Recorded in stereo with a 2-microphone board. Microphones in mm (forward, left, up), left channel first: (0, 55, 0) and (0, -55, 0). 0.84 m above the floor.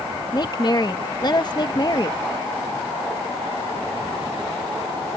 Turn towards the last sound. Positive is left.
turn(degrees=40)  # may be behind; listen again after turning